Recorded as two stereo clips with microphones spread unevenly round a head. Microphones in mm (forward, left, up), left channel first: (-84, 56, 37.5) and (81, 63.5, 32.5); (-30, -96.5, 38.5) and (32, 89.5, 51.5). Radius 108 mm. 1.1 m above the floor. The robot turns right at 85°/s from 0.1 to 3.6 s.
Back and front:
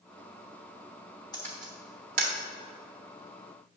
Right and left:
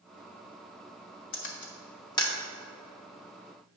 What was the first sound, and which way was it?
A camera shutter, 110° right.